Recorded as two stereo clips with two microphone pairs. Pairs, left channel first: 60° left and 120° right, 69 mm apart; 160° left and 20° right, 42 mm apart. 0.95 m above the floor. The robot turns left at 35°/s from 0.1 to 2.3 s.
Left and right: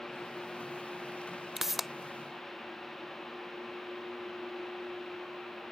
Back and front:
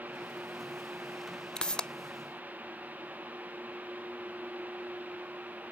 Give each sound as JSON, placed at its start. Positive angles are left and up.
{"t": 1.6, "sound": "a pop", "azimuth_deg": 160}